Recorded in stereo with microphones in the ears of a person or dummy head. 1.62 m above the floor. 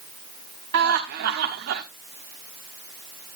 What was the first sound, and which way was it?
Laughter, 60° right (ahead or behind).